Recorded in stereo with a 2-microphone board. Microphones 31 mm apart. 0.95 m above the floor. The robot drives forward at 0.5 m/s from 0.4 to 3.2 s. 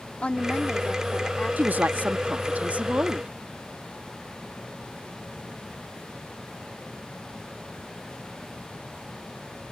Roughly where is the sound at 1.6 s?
Right.